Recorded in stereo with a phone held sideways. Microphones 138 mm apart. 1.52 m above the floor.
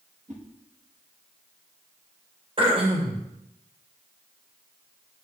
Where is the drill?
I don't hear a drill.